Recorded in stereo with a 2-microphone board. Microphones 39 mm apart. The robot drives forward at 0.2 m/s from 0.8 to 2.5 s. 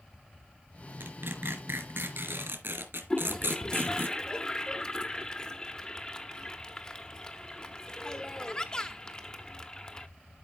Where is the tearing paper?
80° right, 2.5 m; by 4.1 s 75° right (ahead or behind), 2.5 m.